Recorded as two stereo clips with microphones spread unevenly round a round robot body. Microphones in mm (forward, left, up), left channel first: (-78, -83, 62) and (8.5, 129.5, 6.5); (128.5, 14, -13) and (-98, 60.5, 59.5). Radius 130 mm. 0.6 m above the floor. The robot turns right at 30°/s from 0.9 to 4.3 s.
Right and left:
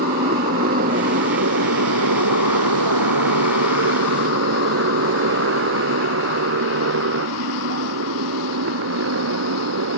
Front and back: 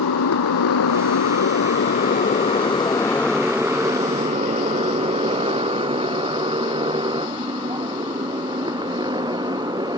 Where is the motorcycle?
15° left; by 10.0 s 95° left.